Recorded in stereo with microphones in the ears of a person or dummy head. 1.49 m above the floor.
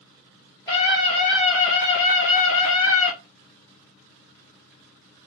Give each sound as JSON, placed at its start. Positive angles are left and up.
{"t": 0.7, "sound": "a scream", "side_deg": 25, "distance_m": 1.1}